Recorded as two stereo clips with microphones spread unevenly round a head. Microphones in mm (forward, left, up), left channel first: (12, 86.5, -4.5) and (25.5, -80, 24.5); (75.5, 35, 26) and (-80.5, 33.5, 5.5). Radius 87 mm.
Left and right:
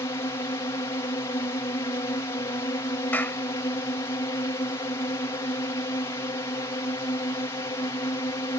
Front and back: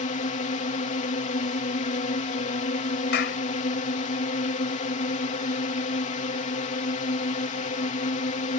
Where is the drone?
35° left.